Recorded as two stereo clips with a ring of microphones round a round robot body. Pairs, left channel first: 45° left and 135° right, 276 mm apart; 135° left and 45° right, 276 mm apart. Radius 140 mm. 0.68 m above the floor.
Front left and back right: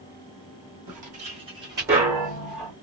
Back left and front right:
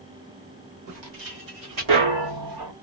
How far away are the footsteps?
About 1.7 m.